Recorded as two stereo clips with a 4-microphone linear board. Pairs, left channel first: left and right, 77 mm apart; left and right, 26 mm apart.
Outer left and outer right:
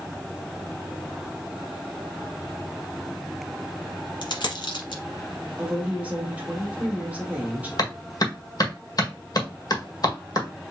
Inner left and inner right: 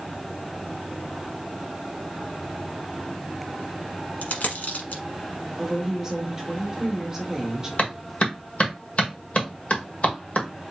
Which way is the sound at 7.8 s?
55° left (ahead or behind).